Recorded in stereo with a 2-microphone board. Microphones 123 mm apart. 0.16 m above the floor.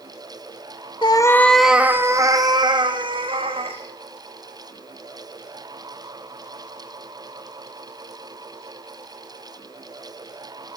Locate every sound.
1.0 s a cat meowing: 40° left (ahead or behind), 0.6 m; by 3.8 s 50° right (ahead or behind), 1.9 m